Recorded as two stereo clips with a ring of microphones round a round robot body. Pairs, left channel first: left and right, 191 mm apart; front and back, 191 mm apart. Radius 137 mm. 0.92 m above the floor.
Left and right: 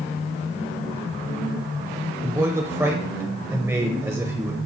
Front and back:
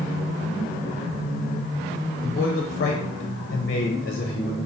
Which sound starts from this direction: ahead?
A man speaking, at 2.2 s.